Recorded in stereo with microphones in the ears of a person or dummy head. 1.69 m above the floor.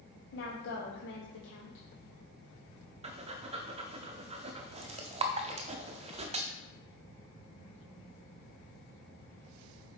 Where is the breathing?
25° right (ahead or behind), 0.6 m.